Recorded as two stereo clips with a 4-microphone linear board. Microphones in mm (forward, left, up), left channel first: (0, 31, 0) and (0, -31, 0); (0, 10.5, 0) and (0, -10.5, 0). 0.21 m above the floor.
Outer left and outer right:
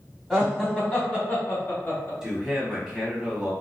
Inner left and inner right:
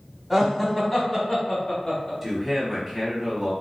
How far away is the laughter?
About 1.2 m.